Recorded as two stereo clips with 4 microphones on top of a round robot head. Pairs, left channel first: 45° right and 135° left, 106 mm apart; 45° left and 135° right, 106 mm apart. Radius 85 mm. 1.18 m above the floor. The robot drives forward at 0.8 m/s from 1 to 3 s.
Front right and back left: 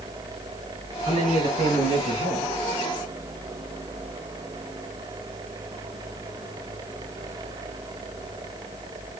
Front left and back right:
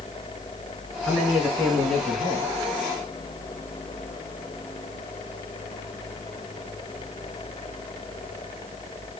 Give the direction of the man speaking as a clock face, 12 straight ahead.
7 o'clock.